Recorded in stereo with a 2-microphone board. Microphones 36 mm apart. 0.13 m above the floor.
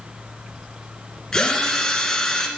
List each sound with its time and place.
1.3 s a drill: 20° left (ahead or behind), 1.8 m